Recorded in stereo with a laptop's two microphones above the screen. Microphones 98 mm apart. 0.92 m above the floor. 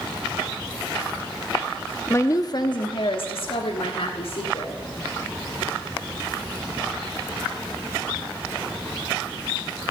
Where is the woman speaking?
25° left (ahead or behind), 1.2 m; by 4.8 s 85° left, 2.5 m.